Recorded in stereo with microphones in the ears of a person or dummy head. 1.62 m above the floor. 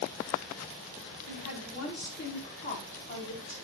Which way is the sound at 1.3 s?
65° left (ahead or behind).